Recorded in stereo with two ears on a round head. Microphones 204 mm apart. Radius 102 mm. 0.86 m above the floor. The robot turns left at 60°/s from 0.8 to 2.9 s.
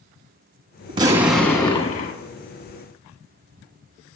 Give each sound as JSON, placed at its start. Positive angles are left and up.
{"t": 0.9, "sound": "an explosion", "azimuth_deg": -155, "distance_m": 1.0}